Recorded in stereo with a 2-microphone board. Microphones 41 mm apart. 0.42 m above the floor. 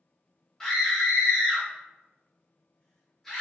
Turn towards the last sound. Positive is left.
turn(degrees=10)  # may be behind; listen again after turning